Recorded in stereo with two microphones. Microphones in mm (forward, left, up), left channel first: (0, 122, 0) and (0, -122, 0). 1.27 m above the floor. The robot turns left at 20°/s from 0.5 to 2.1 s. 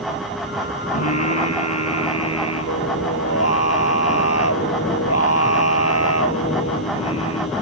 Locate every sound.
0.9 s singing: 85° left; by 7.5 s 70° left (ahead or behind)